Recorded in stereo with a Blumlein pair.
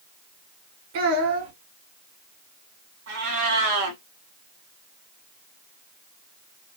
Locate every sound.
0.9 s a child speaking: 50° right, 1.7 m
3.1 s a cat meowing: 50° right, 1.8 m